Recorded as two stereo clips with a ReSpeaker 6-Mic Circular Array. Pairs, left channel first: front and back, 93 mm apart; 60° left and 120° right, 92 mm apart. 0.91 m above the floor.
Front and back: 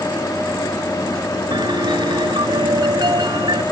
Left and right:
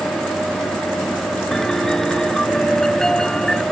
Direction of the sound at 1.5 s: 145° left.